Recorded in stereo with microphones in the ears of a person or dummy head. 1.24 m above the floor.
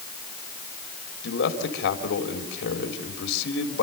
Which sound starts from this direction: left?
A man speaking, at 1.2 s.